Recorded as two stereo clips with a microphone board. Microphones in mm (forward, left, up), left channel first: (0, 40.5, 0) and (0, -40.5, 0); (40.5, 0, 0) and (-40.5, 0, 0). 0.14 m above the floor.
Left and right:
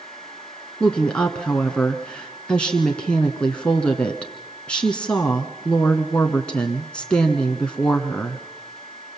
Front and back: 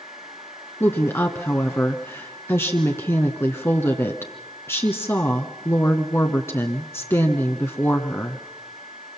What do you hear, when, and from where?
0.8 s a woman speaking: 25° left, 1.3 m